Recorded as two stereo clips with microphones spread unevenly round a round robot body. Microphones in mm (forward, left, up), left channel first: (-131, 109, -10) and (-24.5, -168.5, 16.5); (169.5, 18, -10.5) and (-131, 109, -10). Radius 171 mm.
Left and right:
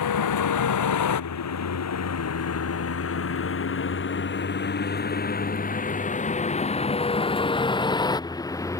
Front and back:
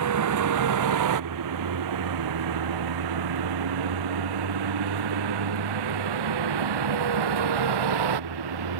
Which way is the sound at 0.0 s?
130° left.